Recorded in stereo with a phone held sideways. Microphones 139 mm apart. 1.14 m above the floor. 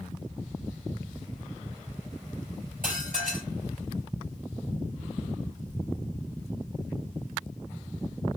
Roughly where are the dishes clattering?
Right.